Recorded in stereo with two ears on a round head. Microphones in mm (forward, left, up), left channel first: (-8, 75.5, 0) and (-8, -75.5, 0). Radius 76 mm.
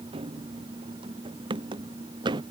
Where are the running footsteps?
30° right (ahead or behind); by 2.4 s 25° right (ahead or behind).